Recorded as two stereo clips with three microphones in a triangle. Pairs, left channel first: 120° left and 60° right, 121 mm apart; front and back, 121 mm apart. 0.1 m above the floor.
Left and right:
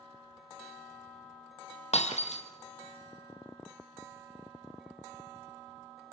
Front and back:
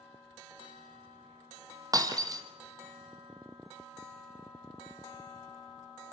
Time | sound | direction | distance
1.9 | breaking glass | 125° left | 2.5 m